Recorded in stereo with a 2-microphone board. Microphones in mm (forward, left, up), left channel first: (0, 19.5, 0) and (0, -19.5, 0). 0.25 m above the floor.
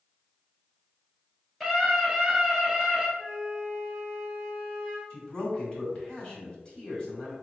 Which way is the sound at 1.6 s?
10° left (ahead or behind).